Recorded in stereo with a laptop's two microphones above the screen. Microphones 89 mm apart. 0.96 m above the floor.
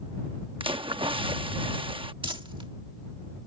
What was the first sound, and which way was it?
A splash, 70° right (ahead or behind).